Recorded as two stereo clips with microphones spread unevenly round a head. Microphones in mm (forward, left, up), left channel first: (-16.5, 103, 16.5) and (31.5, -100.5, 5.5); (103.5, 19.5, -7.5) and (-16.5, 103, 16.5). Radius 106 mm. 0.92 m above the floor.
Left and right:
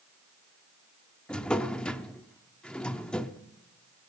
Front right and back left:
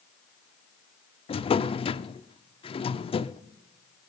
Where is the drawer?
20° left, 0.6 m.